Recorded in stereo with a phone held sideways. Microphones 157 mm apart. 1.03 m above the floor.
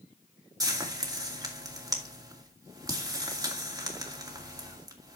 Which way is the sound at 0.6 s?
20° right (ahead or behind).